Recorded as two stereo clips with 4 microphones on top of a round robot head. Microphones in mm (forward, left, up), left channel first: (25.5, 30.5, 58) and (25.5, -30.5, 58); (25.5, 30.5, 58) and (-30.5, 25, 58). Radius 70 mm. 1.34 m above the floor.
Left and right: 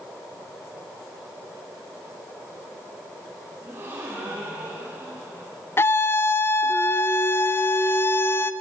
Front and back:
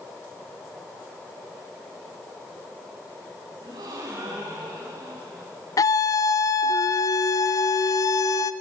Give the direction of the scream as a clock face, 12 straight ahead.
11 o'clock.